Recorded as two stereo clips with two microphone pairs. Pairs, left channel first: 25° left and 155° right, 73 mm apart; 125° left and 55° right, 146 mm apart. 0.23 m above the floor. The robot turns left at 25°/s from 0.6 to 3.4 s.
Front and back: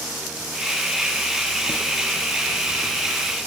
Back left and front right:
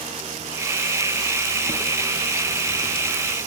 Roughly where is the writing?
Ahead.